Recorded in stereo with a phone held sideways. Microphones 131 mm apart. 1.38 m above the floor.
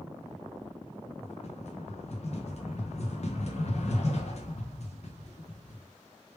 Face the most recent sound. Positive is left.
turn(degrees=55)  # may be behind; listen again after turning